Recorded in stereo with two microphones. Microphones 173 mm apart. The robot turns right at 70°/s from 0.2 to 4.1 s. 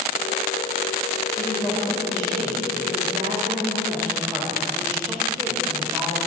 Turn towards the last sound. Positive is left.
turn(degrees=-20)